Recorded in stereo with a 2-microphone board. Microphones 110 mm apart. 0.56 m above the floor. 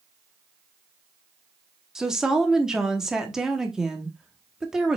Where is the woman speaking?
5° right (ahead or behind), 0.9 m.